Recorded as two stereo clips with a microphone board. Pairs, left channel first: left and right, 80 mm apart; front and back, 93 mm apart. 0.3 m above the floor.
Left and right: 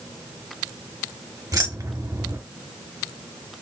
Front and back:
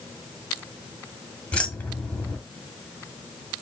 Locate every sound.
1.5 s keys jangling: 70° right, 1.2 m